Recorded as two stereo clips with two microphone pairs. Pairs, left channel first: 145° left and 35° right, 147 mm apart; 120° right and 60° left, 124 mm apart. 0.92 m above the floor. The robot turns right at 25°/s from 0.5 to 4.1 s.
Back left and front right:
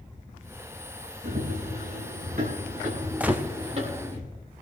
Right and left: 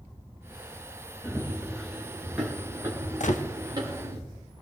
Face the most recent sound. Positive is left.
turn(degrees=-95)